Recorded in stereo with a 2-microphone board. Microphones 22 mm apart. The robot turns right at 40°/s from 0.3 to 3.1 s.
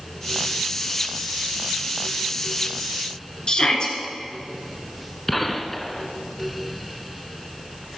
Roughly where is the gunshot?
Centre.